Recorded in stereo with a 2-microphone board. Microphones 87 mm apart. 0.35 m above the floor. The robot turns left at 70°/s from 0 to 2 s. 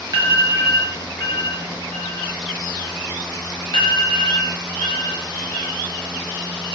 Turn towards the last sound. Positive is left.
turn(degrees=80)